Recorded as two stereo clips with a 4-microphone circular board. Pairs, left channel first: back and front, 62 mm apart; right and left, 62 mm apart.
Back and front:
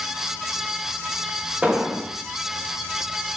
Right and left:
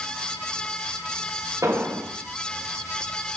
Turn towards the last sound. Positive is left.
turn(degrees=70)